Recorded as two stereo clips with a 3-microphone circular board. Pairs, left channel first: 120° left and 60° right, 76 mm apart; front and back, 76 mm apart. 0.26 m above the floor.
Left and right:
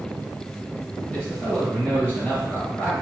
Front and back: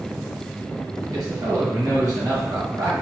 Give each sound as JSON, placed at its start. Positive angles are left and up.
{"t": 1.1, "sound": "a man speaking", "azimuth_deg": -175, "distance_m": 1.4}